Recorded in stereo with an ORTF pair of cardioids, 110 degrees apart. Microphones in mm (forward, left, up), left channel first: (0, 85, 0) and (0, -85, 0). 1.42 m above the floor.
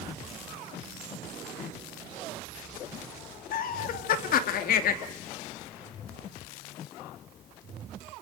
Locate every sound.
3.5 s laughter: 60° left, 2.5 m